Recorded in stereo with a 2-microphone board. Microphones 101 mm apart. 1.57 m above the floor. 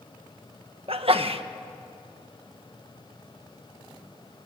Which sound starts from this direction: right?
A sneeze, at 0.9 s.